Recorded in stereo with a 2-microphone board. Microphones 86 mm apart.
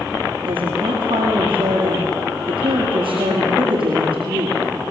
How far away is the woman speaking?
About 7 m.